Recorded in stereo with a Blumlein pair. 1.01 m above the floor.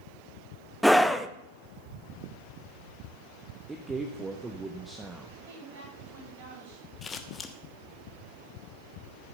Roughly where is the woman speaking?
Ahead right.